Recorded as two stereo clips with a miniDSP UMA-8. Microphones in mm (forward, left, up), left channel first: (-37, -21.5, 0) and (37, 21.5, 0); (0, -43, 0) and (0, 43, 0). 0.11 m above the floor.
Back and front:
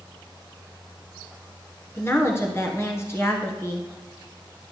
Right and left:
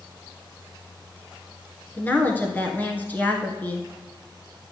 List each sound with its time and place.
2.0 s a woman speaking: 140° right, 1.4 m